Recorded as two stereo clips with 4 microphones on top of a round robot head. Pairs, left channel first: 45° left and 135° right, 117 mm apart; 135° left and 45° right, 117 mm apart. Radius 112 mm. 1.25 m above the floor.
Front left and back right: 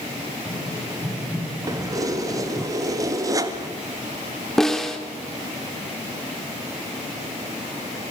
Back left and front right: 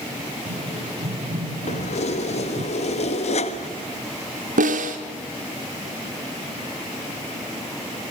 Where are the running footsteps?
45° right, 7 m; by 2.7 s 40° right, 4 m.